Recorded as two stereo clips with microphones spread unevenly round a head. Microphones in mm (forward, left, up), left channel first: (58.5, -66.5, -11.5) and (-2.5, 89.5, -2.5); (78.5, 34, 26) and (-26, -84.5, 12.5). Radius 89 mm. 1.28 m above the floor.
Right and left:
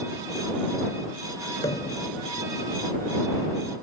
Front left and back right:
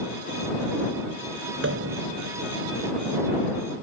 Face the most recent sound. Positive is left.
turn(degrees=-145)